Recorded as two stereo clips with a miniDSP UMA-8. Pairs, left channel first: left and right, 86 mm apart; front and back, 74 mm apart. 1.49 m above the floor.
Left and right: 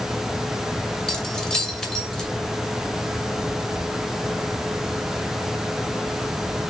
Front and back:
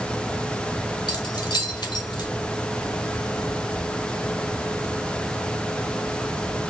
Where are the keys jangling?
10° left, 2 m.